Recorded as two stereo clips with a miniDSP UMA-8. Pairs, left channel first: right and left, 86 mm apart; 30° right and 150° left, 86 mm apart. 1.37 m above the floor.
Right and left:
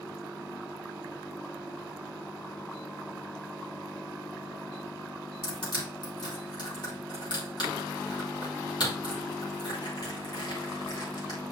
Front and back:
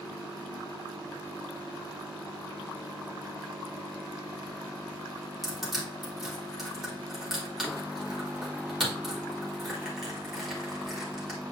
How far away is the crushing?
About 2.5 m.